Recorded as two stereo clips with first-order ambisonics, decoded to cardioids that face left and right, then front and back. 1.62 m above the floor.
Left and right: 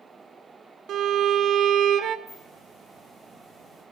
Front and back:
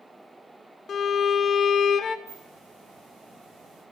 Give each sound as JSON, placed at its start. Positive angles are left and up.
{"t": 0.9, "sound": "a violin", "azimuth_deg": -55, "distance_m": 0.6}
{"t": 2.3, "sound": "a hiss", "azimuth_deg": 170, "distance_m": 5.5}